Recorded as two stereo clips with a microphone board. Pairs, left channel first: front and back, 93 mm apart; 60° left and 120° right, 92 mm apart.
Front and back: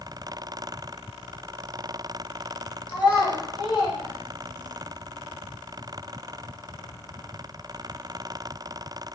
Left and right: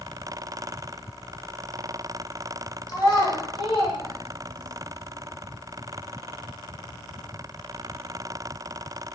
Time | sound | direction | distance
2.9 | a child speaking | 15° left | 1.0 m